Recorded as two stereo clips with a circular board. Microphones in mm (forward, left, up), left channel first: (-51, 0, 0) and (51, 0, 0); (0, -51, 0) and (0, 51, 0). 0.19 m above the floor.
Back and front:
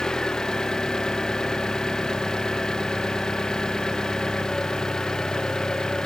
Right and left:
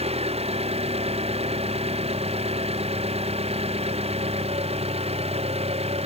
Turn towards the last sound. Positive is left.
turn(degrees=95)